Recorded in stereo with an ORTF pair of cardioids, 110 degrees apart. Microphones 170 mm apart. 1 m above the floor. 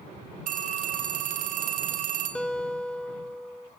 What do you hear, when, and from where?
0.5 s a phone ringing: 50° right, 1.8 m
2.4 s a guitar: 5° left, 0.9 m